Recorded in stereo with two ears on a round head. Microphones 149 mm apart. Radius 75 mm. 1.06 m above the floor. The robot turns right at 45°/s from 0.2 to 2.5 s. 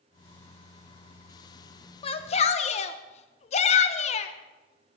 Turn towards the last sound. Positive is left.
turn(degrees=40)  # may be behind; listen again after turning